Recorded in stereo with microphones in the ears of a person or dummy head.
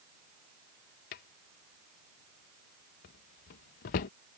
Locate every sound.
1.1 s a drawer: 30° left (ahead or behind)